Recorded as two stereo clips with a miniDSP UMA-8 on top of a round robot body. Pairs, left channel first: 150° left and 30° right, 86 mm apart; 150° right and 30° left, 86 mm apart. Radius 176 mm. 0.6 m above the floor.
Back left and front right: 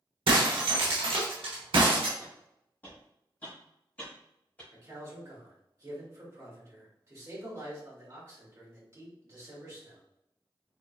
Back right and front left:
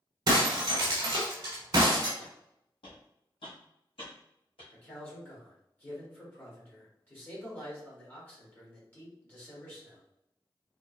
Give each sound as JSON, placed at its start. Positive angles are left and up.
{"t": 0.3, "sound": "breaking glass", "azimuth_deg": -15, "distance_m": 0.8}
{"t": 2.2, "sound": "footsteps", "azimuth_deg": -140, "distance_m": 1.4}
{"t": 4.7, "sound": "a man speaking", "azimuth_deg": -85, "distance_m": 2.0}